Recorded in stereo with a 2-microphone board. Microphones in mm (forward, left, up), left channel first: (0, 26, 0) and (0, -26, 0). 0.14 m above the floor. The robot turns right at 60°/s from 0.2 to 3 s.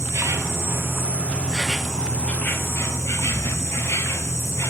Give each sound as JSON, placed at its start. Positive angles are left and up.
{"t": 0.0, "sound": "an insect", "azimuth_deg": -95, "distance_m": 0.8}